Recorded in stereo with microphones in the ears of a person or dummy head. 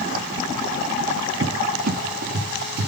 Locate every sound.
1.4 s a cupboard door: 55° right (ahead or behind), 1.4 m